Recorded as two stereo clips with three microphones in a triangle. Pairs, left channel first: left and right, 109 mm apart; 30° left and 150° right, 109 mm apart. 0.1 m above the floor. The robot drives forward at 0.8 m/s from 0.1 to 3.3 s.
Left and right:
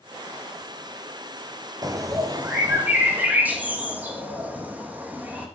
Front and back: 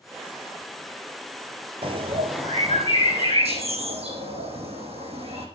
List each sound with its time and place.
1.8 s a bird: 135° right, 0.7 m; by 5.5 s 165° right, 1.7 m